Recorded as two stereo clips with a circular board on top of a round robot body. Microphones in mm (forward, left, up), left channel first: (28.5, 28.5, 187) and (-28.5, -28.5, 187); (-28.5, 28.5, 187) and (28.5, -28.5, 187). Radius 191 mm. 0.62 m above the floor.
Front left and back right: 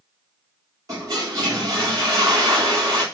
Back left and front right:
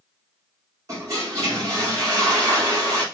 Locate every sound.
0.9 s a toilet flushing: 90° right, 2 m